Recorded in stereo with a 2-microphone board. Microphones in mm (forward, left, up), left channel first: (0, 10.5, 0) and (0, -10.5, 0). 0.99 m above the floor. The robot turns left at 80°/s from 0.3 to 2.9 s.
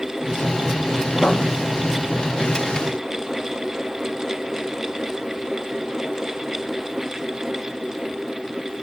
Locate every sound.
1.2 s writing: 50° left (ahead or behind), 0.5 m; by 1.5 s 60° left (ahead or behind), 0.5 m